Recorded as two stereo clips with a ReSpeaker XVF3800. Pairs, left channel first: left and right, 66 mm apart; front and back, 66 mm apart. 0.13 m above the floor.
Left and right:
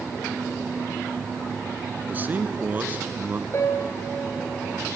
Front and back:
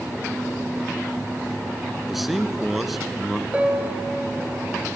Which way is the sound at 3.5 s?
115° left.